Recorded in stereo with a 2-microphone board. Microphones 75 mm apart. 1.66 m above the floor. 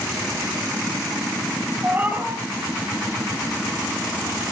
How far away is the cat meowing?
About 3.5 m.